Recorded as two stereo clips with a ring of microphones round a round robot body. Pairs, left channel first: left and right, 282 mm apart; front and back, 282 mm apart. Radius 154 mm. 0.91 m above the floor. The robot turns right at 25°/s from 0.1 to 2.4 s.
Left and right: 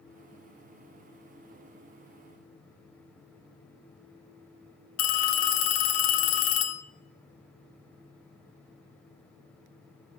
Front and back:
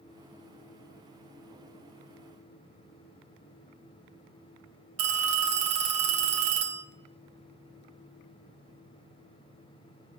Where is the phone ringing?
135° left, 0.9 m.